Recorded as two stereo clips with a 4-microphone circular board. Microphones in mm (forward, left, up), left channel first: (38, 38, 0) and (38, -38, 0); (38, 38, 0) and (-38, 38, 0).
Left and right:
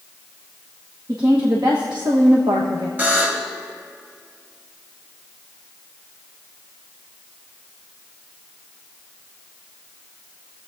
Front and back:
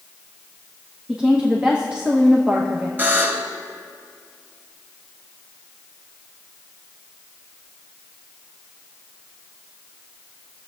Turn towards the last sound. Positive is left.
turn(degrees=-135)